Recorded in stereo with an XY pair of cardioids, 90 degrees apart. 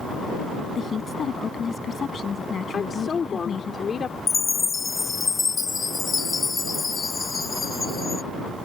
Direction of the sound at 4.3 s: 35° left.